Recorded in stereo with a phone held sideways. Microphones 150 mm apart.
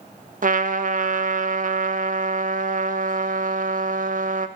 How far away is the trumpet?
About 0.5 m.